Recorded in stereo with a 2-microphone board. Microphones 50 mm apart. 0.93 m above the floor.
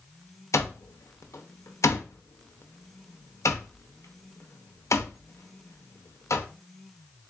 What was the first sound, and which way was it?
An alarm clock, 75° left (ahead or behind).